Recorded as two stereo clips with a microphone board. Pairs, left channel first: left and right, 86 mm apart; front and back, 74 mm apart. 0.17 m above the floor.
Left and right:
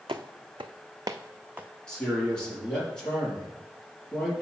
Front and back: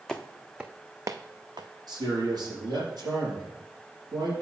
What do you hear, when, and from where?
0.1 s footsteps: 80° right, 0.8 m; by 1.7 s 160° right, 0.8 m
1.9 s a man speaking: 170° left, 4 m